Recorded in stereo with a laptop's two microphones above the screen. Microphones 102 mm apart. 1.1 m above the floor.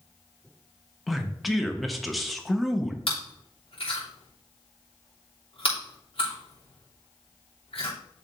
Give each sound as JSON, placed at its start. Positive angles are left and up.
{"t": 1.1, "sound": "a man speaking", "side_deg": 0, "distance_m": 1.0}
{"t": 3.1, "sound": "chewing", "side_deg": 75, "distance_m": 3.0}